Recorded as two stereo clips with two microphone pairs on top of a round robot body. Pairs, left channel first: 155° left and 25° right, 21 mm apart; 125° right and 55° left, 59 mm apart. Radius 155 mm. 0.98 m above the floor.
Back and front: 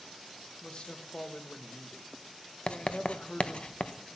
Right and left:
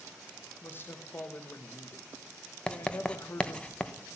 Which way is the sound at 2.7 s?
165° left.